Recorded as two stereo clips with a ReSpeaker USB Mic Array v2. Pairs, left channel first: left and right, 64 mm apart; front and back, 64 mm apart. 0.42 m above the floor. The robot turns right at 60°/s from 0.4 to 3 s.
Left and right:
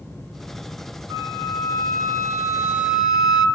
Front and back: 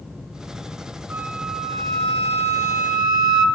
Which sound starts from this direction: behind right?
A flute, at 1.1 s.